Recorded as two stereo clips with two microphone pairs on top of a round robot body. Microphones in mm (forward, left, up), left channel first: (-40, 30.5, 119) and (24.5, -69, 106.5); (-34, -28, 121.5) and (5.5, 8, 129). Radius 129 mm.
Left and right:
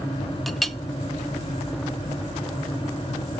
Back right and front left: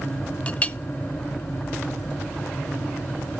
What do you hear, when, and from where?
0.5 s a clink: 140° right, 0.8 m